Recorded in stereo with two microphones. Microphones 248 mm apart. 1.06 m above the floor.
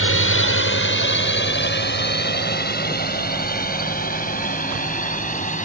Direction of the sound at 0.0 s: 50° left (ahead or behind).